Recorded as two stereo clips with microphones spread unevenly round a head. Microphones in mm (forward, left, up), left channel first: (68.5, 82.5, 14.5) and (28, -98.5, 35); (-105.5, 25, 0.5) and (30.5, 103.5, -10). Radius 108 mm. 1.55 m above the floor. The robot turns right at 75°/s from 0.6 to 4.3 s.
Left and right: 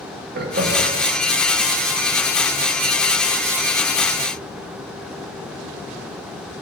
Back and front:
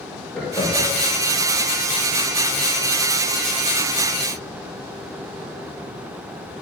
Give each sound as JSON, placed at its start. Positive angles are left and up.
{"t": 0.3, "sound": "laughter", "azimuth_deg": -70, "distance_m": 1.9}